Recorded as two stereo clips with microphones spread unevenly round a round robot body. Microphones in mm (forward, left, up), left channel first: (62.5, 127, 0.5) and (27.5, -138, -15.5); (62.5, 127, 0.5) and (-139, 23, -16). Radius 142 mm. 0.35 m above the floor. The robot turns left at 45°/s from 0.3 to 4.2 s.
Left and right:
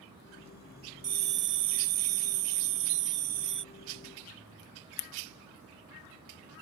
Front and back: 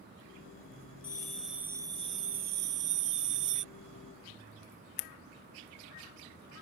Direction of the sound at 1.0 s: 45° right.